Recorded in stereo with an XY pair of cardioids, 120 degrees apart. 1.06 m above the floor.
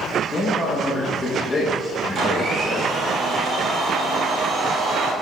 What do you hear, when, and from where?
0.3 s a man speaking: 20° left, 0.9 m
2.1 s a blender: 45° right, 1.1 m